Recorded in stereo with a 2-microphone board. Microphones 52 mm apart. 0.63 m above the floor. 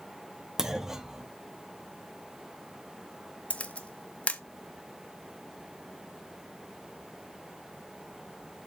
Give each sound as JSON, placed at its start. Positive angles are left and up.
{"t": 0.6, "sound": "a clunk", "side_deg": -10, "distance_m": 0.6}
{"t": 3.5, "sound": "a camera shutter", "side_deg": 25, "distance_m": 0.7}